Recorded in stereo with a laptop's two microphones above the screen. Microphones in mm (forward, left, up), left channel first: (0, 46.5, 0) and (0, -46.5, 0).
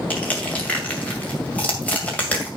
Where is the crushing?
15° left (ahead or behind), 2 m.